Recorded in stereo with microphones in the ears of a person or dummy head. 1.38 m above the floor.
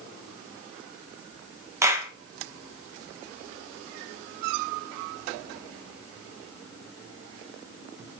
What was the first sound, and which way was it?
A clap, 20° right (ahead or behind).